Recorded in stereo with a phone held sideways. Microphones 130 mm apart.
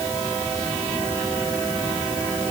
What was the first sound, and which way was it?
Only background noise.